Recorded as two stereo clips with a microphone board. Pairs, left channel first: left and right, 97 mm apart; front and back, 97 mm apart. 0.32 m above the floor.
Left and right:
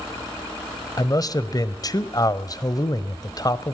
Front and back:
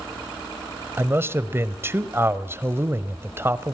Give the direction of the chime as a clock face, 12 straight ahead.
No chime in this recording.